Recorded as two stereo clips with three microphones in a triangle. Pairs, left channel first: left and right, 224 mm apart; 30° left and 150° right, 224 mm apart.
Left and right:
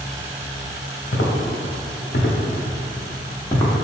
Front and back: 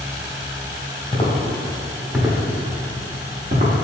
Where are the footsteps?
95° left, 1.1 m; by 3.7 s 170° left, 1.1 m.